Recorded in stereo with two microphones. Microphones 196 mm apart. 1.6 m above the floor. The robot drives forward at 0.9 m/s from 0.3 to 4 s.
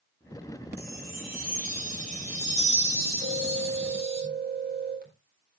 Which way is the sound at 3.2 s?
55° right (ahead or behind).